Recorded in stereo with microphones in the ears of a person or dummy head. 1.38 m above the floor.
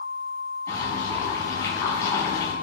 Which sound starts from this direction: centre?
Boiling, at 0.7 s.